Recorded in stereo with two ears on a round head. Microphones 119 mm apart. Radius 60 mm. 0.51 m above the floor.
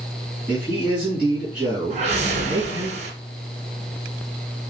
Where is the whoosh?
55° right (ahead or behind), 1.7 m.